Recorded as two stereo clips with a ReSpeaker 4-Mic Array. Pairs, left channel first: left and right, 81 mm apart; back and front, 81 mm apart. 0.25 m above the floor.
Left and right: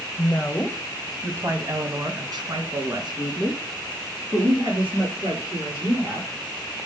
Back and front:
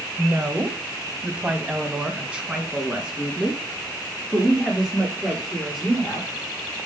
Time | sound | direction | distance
0.2 | a woman speaking | 55° left | 1.1 m